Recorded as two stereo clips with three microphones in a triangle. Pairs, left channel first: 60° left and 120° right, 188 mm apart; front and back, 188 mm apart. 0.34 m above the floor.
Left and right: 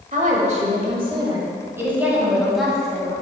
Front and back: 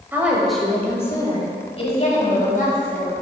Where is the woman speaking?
105° right, 1.2 m; by 3.1 s 25° right, 1.9 m.